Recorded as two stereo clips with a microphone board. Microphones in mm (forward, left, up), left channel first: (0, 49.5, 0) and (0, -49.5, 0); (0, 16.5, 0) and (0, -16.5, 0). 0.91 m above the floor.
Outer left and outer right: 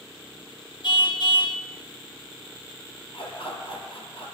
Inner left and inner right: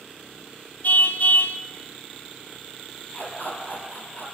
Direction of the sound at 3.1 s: 60° left (ahead or behind).